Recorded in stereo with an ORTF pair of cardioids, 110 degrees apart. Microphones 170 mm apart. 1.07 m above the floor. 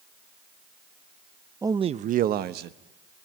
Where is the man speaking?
15° right, 0.7 m; by 2.8 s 75° right, 1.3 m.